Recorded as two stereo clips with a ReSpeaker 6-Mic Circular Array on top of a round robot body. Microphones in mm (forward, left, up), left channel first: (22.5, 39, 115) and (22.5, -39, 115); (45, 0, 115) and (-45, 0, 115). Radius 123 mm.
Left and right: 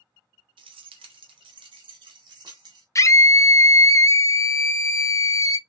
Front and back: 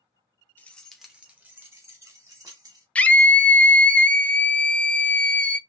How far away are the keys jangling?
About 0.5 m.